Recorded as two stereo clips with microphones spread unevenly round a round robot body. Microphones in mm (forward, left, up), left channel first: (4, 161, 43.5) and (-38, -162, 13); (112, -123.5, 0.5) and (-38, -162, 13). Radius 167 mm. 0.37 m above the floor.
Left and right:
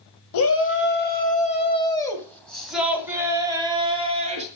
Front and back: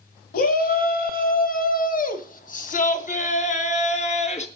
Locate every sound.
0.3 s a shout: 35° left, 2 m; by 4.5 s 30° right, 3.5 m